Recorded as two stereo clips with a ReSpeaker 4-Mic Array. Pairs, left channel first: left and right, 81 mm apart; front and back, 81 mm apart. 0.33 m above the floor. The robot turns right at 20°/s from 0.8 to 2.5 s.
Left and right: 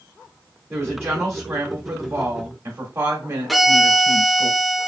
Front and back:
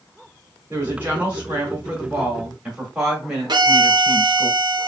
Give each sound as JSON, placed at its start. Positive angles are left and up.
{"t": 0.7, "sound": "a woman speaking", "azimuth_deg": -135, "distance_m": 1.6}
{"t": 3.5, "sound": "a violin", "azimuth_deg": 180, "distance_m": 0.7}